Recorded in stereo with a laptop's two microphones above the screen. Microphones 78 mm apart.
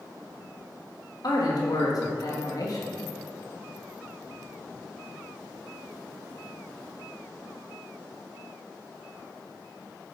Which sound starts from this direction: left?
A man speaking, at 1.2 s.